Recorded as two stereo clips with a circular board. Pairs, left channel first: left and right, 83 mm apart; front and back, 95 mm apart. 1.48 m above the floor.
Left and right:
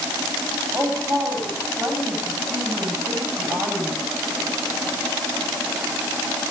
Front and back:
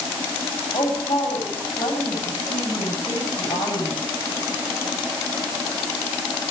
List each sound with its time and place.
0.7 s a woman speaking: 35° right, 10 m